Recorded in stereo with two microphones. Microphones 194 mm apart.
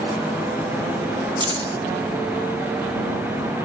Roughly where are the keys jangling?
Right.